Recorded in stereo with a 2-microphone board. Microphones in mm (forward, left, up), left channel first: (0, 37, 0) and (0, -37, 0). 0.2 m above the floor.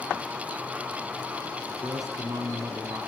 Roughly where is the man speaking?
Right.